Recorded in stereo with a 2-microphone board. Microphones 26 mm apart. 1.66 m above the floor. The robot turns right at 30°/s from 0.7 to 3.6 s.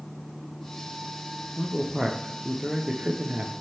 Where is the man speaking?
175° right, 0.7 m; by 3.5 s 115° right, 0.7 m.